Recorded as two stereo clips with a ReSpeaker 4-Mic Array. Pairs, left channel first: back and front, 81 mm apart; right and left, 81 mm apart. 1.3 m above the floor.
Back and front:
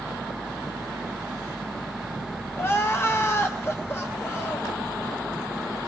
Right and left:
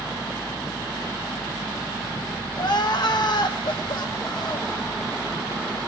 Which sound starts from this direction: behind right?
Crying, at 2.6 s.